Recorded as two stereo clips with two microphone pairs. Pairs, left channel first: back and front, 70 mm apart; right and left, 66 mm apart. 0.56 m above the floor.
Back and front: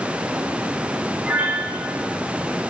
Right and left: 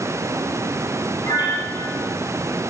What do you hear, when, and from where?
1.2 s a piano: 75° right, 10 m